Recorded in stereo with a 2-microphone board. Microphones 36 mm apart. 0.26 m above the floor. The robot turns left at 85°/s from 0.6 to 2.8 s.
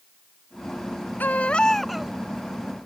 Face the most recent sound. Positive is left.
turn(degrees=-75)